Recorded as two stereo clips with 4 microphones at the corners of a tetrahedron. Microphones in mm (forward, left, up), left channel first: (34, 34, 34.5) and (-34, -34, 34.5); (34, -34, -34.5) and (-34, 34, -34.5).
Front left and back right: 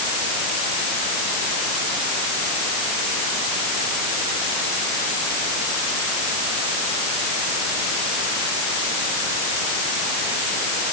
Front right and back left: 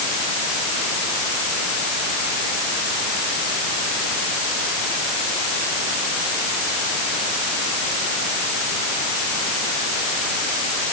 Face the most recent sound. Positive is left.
No sound to turn to.